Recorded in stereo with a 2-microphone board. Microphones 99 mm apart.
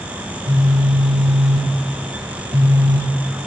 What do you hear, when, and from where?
0.2 s a phone buzzing: 80° right, 3.5 m